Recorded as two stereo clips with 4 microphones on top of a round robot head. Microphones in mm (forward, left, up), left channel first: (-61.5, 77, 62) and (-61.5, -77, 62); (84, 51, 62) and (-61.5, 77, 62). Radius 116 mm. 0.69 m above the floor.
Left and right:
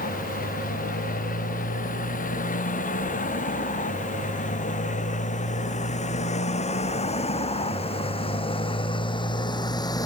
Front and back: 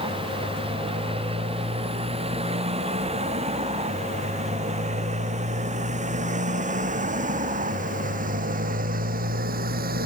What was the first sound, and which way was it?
A motorcycle, 120° left.